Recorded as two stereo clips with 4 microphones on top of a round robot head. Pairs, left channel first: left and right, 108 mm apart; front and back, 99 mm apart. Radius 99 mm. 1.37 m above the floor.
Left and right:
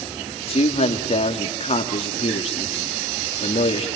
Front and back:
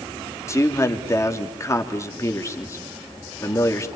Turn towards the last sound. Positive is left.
turn(degrees=60)